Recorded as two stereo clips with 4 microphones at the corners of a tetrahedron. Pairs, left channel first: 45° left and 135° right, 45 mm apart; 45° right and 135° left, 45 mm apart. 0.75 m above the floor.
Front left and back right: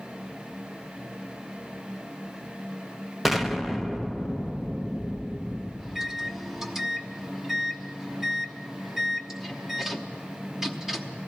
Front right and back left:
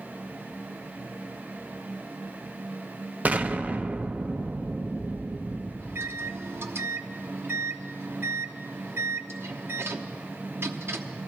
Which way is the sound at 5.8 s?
145° left.